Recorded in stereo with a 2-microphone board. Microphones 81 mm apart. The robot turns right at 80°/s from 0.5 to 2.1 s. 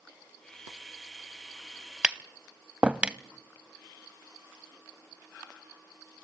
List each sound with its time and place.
2.0 s tapping: 10° right (ahead or behind), 0.6 m